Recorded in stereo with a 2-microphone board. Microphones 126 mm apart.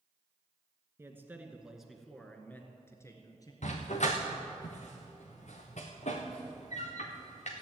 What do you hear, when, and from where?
1.0 s a man speaking: 20° right (ahead or behind), 1.7 m; by 3.5 s 30° left (ahead or behind), 2 m
3.6 s a dog barking: 70° left (ahead or behind), 2.5 m